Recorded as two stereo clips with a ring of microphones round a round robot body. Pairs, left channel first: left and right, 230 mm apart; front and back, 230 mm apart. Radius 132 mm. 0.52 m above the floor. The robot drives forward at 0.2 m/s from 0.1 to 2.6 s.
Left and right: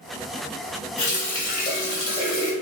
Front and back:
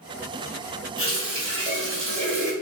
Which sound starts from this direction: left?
A running tap, at 1.0 s.